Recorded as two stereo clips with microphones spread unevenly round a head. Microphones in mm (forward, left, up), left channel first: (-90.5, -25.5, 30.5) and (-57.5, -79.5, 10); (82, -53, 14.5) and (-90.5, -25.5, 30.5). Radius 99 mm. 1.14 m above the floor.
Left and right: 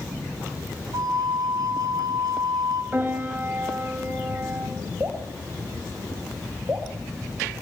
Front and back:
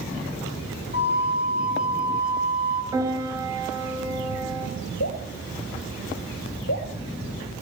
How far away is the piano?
About 5 m.